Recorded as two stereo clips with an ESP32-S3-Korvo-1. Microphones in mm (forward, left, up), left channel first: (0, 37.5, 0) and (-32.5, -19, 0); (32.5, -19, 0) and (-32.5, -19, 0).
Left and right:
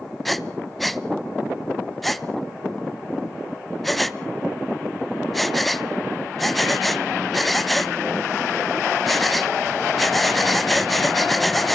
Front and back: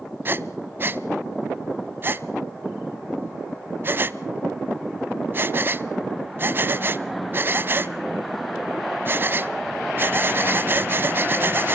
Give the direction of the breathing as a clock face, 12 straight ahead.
7 o'clock.